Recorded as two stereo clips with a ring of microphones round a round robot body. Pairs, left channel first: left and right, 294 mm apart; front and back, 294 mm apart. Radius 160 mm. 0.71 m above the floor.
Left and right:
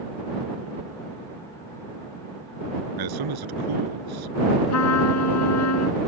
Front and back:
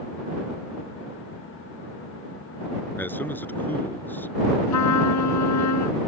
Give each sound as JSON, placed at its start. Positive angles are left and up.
{"t": 3.0, "sound": "a man speaking", "azimuth_deg": -85}
{"t": 4.7, "sound": "a trumpet", "azimuth_deg": 45}